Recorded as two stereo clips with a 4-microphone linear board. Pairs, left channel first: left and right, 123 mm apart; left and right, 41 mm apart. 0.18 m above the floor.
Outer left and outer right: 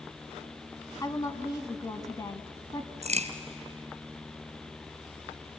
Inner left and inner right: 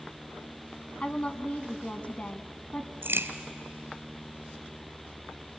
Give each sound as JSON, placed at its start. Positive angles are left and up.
{"t": 1.0, "sound": "a woman speaking", "side_deg": 30, "distance_m": 1.1}
{"t": 3.0, "sound": "a crack", "side_deg": -70, "distance_m": 2.0}